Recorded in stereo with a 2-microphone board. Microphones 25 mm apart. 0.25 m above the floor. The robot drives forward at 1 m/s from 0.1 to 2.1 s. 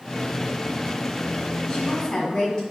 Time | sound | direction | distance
1.7 | a woman speaking | 30° left (ahead or behind) | 1.4 m